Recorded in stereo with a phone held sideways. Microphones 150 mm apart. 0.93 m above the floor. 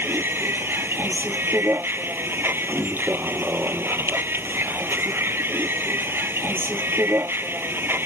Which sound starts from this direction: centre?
A vehicle, at 0.0 s.